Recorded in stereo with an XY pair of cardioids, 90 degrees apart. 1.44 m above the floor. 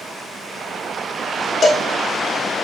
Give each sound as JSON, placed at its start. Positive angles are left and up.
{"t": 1.6, "sound": "a cowbell", "azimuth_deg": 45, "distance_m": 0.9}